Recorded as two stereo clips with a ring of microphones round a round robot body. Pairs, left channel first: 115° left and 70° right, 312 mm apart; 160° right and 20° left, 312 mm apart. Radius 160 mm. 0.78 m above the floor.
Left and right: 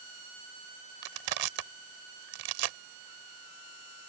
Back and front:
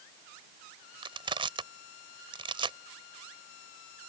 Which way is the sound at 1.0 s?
55° right.